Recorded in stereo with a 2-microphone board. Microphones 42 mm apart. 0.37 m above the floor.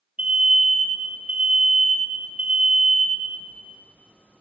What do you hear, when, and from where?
0.2 s an alarm: 30° right (ahead or behind), 6 m